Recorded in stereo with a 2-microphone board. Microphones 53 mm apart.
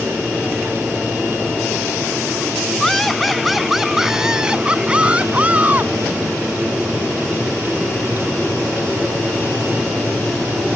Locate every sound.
2.8 s laughter: 5° left (ahead or behind); by 5.9 s 30° right (ahead or behind)